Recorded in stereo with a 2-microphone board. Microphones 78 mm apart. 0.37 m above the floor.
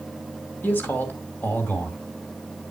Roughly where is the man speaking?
Left.